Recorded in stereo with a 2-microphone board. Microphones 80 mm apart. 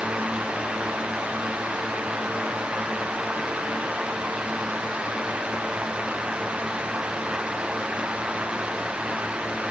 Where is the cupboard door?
I don't hear a cupboard door.